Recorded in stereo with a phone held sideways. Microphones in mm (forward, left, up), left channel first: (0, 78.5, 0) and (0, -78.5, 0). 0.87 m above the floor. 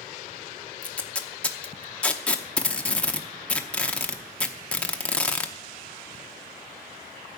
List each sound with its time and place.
0.8 s tape being pulled: 5° left (ahead or behind), 0.8 m